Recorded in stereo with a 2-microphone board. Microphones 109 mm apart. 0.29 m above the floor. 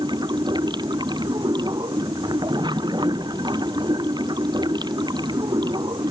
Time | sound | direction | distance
0.0 | running water | 45° right (ahead or behind) | ?